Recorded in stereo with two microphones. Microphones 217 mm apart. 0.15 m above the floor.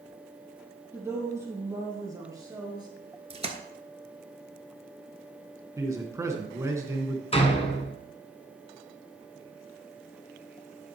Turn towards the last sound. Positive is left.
turn(degrees=30)  # may be behind; listen again after turning